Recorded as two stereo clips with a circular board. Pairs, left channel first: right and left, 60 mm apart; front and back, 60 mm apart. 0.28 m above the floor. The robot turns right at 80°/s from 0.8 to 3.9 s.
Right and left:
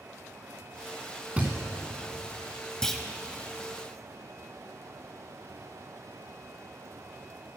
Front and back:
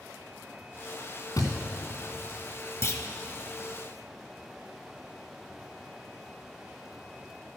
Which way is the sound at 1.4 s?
25° left.